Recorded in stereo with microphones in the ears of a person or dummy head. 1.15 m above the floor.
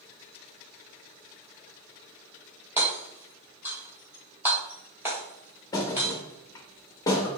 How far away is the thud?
About 0.5 m.